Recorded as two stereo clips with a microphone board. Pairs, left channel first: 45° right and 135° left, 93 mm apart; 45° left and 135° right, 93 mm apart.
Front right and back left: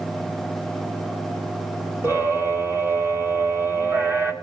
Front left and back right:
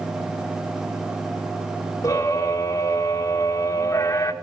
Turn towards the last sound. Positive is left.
turn(degrees=85)